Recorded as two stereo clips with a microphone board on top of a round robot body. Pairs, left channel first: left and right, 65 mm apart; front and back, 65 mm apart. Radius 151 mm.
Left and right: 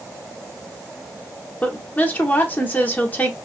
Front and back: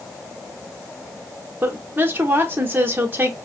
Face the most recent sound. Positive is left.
turn(degrees=140)